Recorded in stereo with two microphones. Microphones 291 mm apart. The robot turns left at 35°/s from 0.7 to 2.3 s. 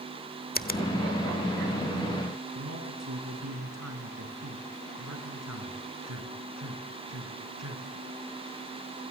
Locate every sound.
0.6 s a finger snap: 35° left (ahead or behind), 1.0 m; by 0.8 s 30° left (ahead or behind), 1.0 m
2.5 s a man speaking: 75° right (ahead or behind), 5.5 m